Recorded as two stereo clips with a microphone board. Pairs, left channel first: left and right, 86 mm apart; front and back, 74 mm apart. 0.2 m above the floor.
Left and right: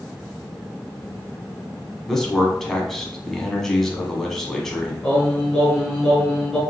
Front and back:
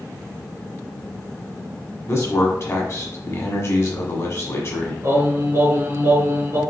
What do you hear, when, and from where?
2.1 s a man speaking: 10° left, 1.2 m
5.0 s singing: 170° left, 2 m